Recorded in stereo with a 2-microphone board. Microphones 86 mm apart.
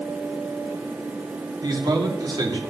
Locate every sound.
1.6 s a man speaking: 55° right (ahead or behind), 2 m